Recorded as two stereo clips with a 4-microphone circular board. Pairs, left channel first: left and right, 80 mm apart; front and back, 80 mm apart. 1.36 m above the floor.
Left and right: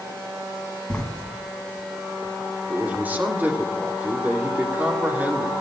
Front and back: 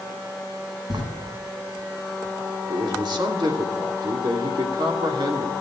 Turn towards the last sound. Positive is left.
turn(degrees=-160)